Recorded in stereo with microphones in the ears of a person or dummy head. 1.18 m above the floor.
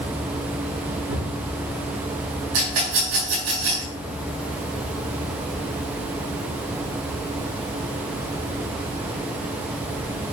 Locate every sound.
1.1 s a cupboard door: 75° right (ahead or behind), 4.5 m
2.5 s a rattle: 80° right, 5 m